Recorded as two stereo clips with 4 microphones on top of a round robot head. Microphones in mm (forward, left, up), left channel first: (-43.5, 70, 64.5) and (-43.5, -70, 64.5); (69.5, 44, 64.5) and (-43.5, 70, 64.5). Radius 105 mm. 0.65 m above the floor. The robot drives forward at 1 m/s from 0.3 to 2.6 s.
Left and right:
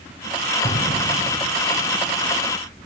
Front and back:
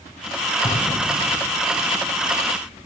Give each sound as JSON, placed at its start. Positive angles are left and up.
{"t": 0.6, "sound": "an explosion", "azimuth_deg": 40, "distance_m": 7.0}